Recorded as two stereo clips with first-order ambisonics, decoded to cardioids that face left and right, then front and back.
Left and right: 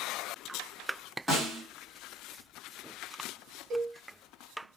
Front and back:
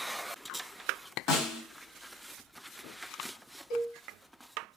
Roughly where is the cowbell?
Ahead right.